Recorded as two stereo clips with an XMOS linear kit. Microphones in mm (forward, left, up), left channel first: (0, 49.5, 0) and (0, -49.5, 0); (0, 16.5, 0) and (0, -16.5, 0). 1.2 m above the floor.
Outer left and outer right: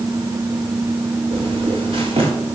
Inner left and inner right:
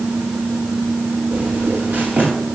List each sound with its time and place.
1.3 s footsteps: 75° right (ahead or behind), 7 m